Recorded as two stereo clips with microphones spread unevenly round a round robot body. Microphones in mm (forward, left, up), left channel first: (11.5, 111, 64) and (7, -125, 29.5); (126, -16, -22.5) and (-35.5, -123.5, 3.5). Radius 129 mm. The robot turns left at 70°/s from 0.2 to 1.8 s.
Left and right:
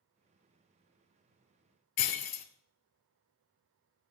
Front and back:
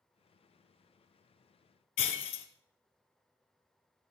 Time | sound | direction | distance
2.0 | breaking glass | 70° left | 1.2 m